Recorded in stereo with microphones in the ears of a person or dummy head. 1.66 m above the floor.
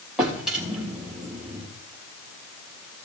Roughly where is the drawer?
Centre.